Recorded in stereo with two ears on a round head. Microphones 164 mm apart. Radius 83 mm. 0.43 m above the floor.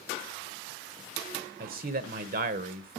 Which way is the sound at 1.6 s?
50° right (ahead or behind).